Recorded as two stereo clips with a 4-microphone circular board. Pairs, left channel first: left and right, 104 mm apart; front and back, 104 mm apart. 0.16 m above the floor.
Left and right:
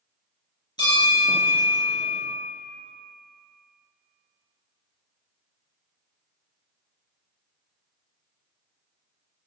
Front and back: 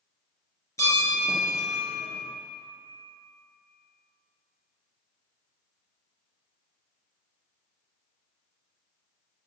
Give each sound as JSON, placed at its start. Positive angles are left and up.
{"t": 0.8, "sound": "a bell", "azimuth_deg": 55, "distance_m": 2.0}